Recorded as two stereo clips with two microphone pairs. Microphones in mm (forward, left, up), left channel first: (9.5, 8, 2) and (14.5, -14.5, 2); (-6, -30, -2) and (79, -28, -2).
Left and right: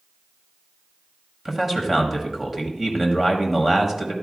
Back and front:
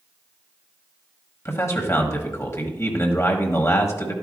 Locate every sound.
1.4 s a man speaking: 140° right, 1.4 m